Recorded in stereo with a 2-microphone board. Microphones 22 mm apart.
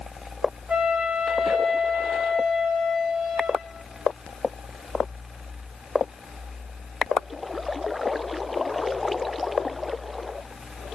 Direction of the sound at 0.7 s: 80° right.